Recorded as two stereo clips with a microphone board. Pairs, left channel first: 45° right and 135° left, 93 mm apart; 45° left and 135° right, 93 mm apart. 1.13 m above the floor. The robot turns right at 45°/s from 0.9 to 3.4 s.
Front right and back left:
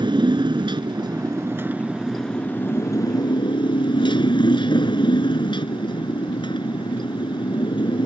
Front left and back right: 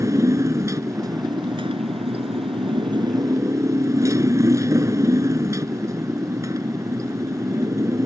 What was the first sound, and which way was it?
A motorcycle, 170° left.